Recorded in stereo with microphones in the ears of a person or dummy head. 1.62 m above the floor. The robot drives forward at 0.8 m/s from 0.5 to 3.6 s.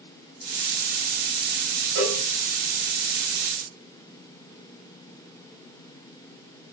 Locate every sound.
1.9 s a cowbell: 60° right (ahead or behind), 3 m; by 2.2 s 55° right (ahead or behind), 3 m